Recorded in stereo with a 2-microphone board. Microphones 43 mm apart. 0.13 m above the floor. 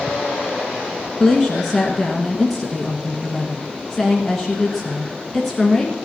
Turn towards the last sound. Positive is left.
turn(degrees=5)  # may be behind; listen again after turning